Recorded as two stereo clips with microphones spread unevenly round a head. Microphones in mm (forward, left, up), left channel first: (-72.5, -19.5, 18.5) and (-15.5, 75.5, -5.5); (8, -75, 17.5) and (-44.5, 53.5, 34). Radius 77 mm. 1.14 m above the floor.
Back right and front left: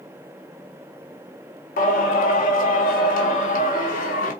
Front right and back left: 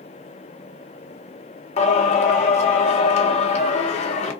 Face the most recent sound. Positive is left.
turn(degrees=-105)